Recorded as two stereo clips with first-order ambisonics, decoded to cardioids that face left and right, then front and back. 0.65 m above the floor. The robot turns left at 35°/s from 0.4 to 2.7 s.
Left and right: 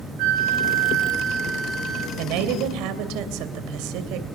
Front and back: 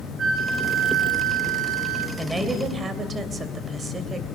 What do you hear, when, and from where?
0.2 s a flute: 110° right, 5.5 m; by 2.1 s 170° right, 5.5 m
2.2 s a woman speaking: 90° right, 2.5 m; by 4.2 s 110° right, 2.5 m